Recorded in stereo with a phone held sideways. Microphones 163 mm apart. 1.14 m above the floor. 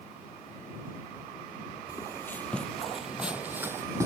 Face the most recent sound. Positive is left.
turn(degrees=-20)  # may be behind; listen again after turning